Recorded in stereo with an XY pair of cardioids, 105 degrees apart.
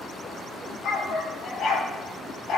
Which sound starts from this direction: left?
A dog barking, at 0.8 s.